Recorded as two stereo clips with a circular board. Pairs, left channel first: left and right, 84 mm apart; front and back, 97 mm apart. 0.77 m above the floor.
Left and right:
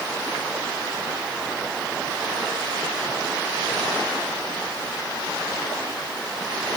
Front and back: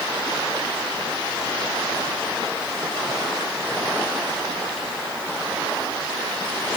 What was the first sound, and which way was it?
Only background noise.